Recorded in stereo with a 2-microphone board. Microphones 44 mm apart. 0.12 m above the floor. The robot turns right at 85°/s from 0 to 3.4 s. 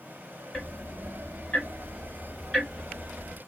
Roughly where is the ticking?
Centre.